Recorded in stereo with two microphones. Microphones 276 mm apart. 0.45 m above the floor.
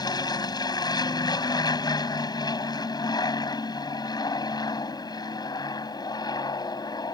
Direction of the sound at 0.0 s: 15° left (ahead or behind).